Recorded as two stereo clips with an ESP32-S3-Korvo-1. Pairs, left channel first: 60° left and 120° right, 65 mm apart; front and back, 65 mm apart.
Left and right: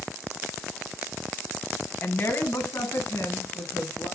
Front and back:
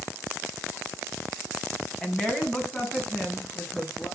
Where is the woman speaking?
65° left, 1.6 m; by 4.1 s 60° left, 4 m.